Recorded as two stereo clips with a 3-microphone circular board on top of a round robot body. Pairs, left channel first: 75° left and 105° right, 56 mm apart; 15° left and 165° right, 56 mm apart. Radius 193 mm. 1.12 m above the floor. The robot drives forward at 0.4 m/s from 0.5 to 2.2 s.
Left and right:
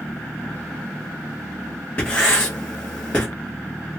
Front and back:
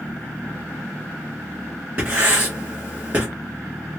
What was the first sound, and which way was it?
Writing, 140° left.